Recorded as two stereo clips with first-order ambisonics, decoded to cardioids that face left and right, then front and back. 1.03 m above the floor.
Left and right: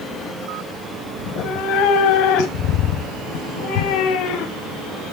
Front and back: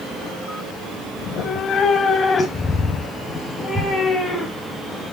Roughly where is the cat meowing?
Ahead left.